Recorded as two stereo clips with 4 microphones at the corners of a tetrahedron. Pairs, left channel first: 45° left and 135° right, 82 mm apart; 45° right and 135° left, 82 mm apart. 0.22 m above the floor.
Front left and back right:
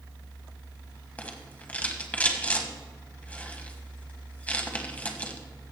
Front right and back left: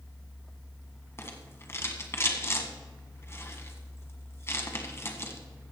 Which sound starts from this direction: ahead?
A rattle, at 1.2 s.